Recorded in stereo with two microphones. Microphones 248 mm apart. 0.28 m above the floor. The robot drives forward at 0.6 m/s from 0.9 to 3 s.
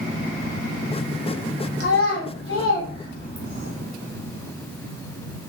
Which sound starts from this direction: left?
A child speaking, at 1.8 s.